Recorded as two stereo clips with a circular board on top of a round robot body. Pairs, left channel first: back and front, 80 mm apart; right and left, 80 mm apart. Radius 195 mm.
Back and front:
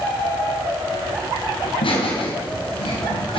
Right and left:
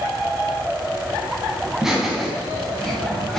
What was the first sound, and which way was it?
Laughter, 175° left.